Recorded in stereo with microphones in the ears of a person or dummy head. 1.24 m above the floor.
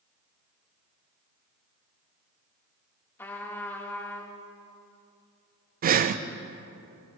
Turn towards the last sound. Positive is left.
turn(degrees=-45)  # may be behind; listen again after turning